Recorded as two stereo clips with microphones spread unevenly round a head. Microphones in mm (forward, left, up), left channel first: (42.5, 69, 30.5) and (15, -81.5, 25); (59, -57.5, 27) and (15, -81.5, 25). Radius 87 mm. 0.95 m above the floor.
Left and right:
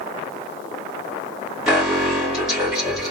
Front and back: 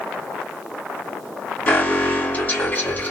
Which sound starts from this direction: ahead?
An alarm, at 1.7 s.